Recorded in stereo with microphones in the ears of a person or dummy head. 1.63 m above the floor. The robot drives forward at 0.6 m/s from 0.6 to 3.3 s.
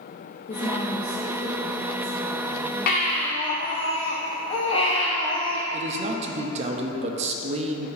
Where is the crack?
I don't hear a crack.